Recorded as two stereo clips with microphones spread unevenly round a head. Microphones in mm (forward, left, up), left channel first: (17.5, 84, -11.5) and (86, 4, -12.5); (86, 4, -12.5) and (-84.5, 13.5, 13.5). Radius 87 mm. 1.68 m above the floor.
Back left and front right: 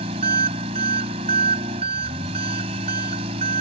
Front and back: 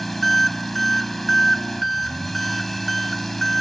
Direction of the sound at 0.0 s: 95° right.